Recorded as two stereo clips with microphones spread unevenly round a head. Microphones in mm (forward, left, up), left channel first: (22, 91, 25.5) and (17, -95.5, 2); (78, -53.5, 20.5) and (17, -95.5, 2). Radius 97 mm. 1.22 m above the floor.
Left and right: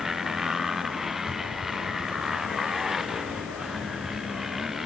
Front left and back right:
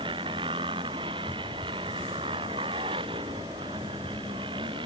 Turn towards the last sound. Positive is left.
turn(degrees=180)